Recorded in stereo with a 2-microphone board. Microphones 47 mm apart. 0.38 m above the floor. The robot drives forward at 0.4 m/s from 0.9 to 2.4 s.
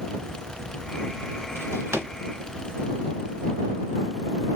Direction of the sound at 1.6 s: 80° right.